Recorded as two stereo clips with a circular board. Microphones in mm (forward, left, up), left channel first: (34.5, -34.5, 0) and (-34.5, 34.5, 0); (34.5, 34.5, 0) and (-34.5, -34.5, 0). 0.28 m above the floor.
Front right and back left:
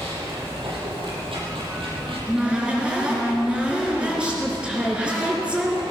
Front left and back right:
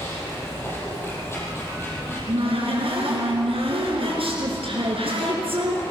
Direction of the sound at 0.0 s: 110° left.